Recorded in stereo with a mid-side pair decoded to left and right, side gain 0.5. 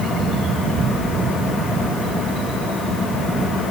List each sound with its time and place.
Only background noise.